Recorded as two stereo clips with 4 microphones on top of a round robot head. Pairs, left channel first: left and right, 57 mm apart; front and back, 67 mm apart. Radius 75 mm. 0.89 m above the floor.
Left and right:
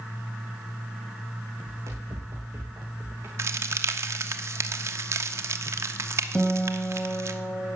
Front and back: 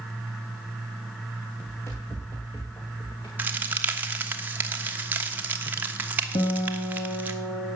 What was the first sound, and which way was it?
Running footsteps, 60° right.